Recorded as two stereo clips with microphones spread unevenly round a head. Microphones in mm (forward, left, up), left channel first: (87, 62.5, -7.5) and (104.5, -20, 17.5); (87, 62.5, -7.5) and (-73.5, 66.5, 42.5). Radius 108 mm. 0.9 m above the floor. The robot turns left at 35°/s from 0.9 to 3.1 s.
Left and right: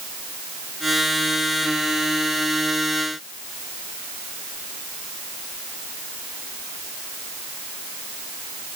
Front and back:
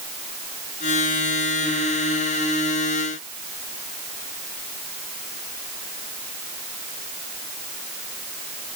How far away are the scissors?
I don't hear scissors.